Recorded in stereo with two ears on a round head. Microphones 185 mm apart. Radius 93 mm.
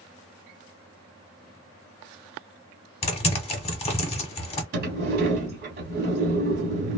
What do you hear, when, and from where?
3.0 s typing on a keyboard: 30° left (ahead or behind), 0.7 m
4.7 s a sliding door: 50° right (ahead or behind), 1.1 m